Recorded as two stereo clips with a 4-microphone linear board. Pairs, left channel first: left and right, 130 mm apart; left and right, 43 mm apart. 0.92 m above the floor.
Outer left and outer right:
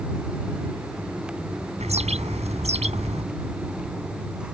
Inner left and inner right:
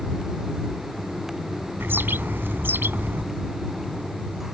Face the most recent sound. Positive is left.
turn(degrees=-55)  # may be behind; listen again after turning